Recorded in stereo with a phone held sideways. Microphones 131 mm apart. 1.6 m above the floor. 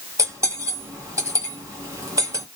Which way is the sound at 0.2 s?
25° right (ahead or behind).